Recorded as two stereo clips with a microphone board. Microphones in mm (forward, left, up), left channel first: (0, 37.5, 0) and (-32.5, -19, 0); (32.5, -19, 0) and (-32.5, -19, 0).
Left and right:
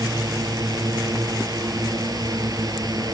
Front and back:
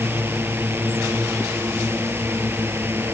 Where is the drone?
125° right.